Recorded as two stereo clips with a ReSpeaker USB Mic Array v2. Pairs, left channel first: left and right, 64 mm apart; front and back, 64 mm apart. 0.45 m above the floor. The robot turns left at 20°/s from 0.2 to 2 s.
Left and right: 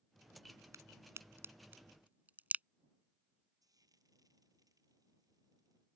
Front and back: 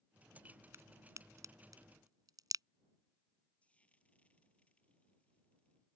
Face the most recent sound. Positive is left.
turn(degrees=-70)